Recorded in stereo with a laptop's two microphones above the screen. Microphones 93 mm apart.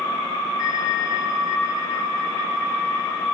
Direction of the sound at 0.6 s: 40° left (ahead or behind).